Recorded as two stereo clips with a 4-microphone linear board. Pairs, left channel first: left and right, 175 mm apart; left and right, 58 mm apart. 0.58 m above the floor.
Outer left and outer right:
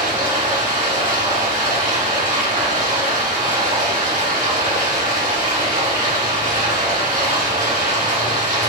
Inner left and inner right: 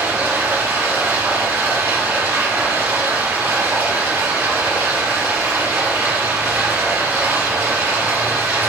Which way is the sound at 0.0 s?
45° right (ahead or behind).